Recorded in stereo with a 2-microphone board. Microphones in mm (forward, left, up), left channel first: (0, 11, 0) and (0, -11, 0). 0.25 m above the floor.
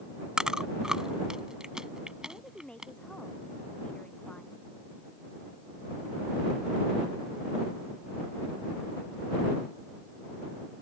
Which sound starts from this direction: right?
Chewing, at 0.4 s.